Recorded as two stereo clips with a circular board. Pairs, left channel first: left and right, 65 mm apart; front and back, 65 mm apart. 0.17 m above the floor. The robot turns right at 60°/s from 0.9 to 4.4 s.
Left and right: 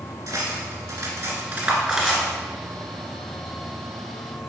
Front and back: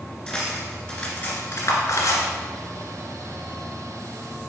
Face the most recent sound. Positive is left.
turn(degrees=140)